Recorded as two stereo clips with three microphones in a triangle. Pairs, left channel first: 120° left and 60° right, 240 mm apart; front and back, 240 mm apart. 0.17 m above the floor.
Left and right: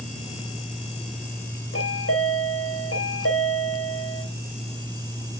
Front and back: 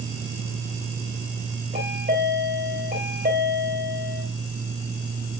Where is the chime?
130° left, 3 m.